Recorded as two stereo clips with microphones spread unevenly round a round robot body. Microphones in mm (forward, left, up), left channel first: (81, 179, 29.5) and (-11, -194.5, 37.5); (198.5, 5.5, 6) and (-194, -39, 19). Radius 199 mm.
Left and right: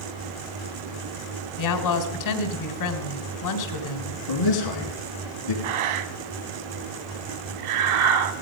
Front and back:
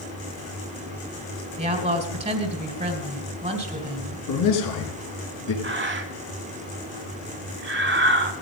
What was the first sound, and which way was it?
A woman speaking, 110° left.